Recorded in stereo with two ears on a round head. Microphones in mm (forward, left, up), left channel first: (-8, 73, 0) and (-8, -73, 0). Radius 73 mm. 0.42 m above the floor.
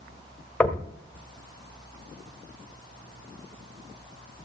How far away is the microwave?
I don't hear a microwave.